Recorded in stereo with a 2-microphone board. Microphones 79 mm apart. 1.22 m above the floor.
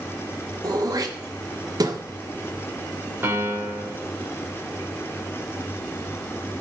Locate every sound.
0.6 s throat clearing: 55° right (ahead or behind), 0.9 m
3.2 s a piano: 30° right (ahead or behind), 2 m